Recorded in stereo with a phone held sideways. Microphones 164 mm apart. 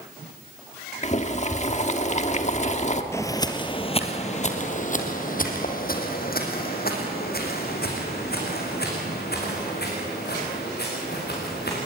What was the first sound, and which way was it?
Boiling, 45° left (ahead or behind).